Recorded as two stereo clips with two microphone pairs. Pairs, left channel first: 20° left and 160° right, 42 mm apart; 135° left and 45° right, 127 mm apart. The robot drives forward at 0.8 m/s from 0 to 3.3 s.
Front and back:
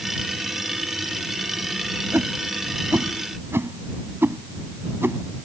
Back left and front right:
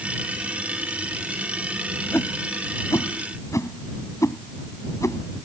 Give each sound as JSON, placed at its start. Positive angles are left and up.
{"t": 2.1, "sound": "a whoosh", "azimuth_deg": -155}